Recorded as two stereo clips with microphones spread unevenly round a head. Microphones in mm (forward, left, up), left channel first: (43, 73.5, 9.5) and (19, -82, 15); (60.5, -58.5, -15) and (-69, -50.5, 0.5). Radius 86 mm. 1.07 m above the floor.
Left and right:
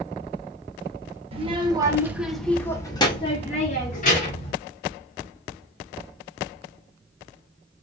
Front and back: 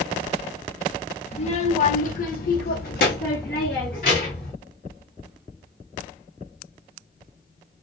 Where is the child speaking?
45° right, 1.0 m; by 4.5 s 50° left, 1.5 m.